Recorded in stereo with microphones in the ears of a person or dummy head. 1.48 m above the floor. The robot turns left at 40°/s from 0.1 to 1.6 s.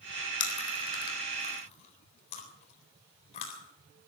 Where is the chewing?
80° left, 4 m; by 3.6 s 35° left (ahead or behind), 4 m.